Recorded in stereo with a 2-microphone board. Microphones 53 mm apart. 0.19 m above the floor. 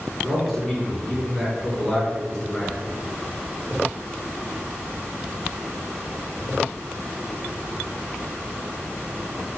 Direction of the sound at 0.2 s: 5° left (ahead or behind).